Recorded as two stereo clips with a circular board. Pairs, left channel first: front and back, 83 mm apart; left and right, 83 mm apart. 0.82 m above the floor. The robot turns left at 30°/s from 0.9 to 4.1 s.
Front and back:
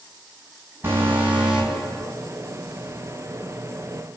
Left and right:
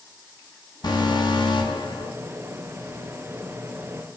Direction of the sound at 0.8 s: 120° left.